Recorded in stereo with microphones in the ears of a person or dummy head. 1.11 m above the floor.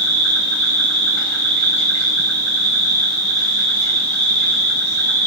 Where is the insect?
15° left (ahead or behind), 3.5 m.